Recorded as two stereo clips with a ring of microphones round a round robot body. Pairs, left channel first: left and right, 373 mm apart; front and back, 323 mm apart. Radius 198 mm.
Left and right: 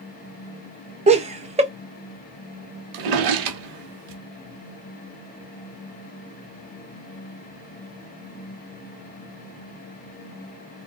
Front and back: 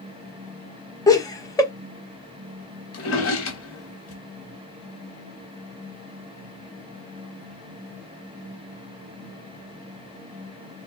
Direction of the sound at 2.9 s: 55° right.